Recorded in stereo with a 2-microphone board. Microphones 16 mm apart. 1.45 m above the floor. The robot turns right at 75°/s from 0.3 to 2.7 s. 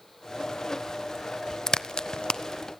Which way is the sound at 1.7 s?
40° left (ahead or behind).